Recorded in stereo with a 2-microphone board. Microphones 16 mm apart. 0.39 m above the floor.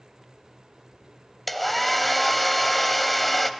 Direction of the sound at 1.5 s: Centre (ahead or behind).